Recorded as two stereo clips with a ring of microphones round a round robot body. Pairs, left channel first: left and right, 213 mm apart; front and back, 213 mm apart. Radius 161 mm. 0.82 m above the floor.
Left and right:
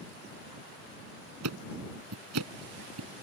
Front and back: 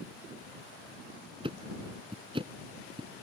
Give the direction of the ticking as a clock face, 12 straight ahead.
4 o'clock.